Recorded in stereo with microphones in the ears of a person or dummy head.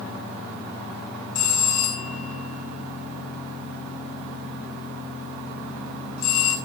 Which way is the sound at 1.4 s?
85° left.